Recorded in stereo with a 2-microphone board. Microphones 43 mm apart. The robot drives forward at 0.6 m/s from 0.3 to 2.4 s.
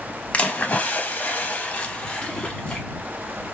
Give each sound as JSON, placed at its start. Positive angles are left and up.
{"t": 0.3, "sound": "a splash", "side_deg": 30, "distance_m": 0.8}